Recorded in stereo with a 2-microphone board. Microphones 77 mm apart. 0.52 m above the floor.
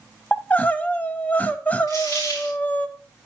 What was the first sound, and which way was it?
Crying, 20° left (ahead or behind).